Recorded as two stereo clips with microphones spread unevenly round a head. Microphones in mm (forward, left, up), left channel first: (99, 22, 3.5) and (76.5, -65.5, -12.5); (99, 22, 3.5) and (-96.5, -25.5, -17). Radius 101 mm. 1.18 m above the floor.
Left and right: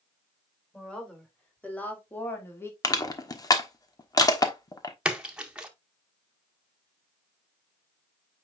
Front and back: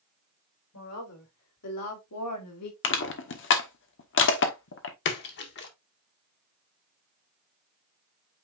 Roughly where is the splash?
Ahead right.